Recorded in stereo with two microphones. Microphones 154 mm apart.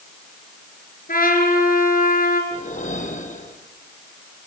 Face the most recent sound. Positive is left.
turn(degrees=55)  # may be behind; listen again after turning